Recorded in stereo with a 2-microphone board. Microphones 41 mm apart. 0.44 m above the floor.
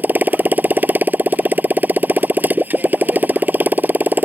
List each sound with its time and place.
0.0 s a motorcycle: 50° right (ahead or behind)